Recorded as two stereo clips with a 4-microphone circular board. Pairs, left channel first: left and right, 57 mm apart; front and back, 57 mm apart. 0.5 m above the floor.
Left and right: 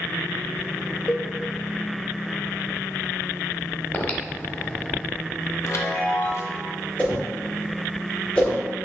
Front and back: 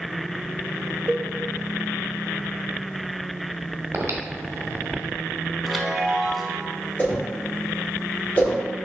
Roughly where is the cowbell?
Behind left.